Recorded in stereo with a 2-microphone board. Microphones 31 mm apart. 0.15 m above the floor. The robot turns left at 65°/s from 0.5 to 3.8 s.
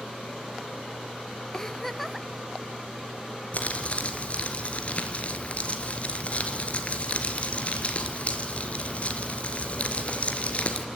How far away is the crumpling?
About 2.5 m.